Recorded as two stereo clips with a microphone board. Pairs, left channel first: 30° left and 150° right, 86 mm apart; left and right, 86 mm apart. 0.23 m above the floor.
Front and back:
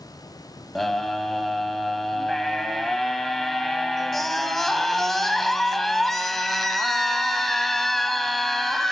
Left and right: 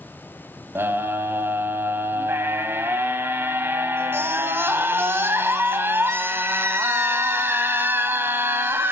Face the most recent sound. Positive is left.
turn(degrees=-55)